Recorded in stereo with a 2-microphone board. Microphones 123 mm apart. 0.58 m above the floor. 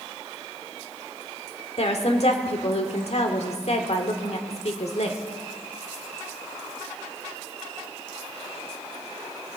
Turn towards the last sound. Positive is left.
turn(degrees=60)  # may be behind; listen again after turning